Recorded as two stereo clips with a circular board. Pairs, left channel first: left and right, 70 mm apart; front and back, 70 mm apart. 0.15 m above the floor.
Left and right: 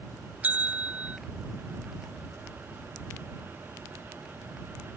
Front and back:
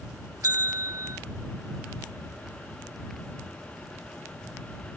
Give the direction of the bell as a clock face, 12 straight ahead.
5 o'clock.